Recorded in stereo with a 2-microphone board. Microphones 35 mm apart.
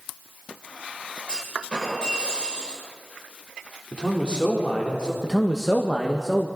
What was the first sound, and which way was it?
A clunk, 25° left (ahead or behind).